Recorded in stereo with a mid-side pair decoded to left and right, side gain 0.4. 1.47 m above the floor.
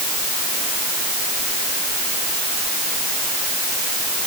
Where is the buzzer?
I don't hear a buzzer.